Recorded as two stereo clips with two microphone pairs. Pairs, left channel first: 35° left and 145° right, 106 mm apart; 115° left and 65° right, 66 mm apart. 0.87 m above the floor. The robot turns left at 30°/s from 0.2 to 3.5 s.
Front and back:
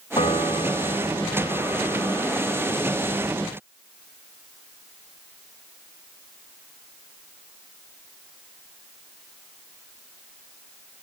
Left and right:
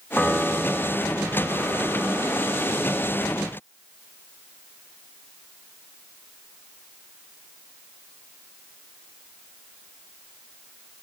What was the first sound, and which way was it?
A piano, 25° left.